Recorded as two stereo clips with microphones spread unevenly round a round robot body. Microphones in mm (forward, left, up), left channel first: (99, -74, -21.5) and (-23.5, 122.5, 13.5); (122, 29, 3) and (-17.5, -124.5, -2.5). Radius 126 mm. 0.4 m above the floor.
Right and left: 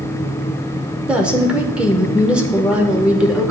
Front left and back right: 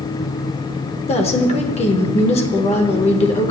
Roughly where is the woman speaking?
Ahead left.